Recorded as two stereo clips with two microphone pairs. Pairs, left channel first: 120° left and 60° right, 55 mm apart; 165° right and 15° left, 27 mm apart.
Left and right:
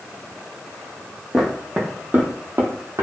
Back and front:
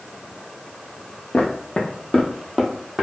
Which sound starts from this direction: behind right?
Footsteps, at 1.3 s.